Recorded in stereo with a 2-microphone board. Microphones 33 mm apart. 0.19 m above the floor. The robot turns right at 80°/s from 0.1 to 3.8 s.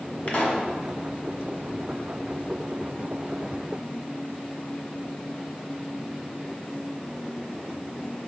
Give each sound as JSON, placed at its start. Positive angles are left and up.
{"t": 0.3, "sound": "a pop", "azimuth_deg": 80, "distance_m": 1.5}